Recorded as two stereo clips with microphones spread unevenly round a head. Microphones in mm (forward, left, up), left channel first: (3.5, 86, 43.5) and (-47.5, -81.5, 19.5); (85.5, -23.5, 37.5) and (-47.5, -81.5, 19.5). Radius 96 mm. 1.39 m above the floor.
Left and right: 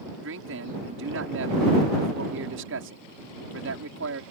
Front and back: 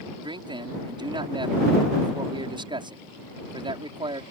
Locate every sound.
0.2 s a man speaking: 100° right